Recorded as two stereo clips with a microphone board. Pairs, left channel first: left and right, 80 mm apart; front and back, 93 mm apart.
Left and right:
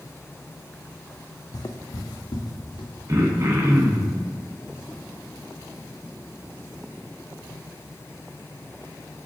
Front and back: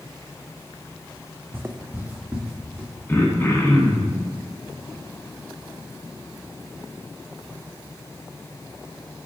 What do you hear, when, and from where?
1.5 s footsteps: 115° left, 0.5 m; by 2.9 s 105° left, 1.5 m
3.1 s throat clearing: 55° right, 0.8 m